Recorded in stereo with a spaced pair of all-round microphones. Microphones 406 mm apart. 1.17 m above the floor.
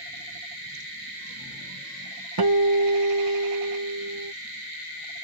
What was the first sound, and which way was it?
A guitar, 60° right (ahead or behind).